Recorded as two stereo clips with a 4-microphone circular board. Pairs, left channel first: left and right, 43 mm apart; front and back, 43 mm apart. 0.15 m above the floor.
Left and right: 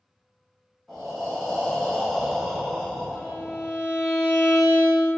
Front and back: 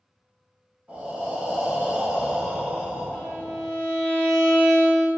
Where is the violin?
5° left, 1.3 m.